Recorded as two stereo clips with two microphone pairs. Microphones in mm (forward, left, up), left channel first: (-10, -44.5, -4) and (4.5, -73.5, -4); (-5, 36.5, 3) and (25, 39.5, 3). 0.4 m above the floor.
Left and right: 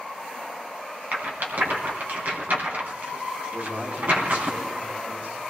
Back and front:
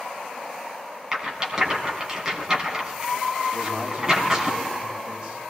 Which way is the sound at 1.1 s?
70° right.